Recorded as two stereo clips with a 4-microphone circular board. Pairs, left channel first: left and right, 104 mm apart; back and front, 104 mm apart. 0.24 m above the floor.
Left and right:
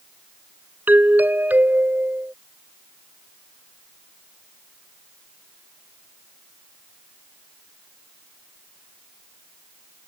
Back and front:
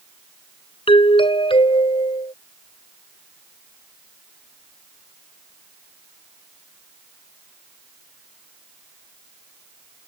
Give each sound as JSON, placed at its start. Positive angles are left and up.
{"t": 0.9, "sound": "a doorbell", "azimuth_deg": -160}